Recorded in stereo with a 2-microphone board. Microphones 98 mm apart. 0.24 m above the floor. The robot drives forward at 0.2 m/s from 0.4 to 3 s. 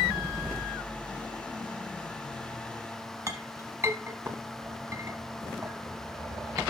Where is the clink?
30° right (ahead or behind), 0.9 m.